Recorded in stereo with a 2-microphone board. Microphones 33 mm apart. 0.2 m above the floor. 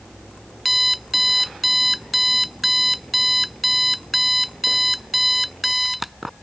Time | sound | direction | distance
0.7 | an alarm clock | 5° right (ahead or behind) | ?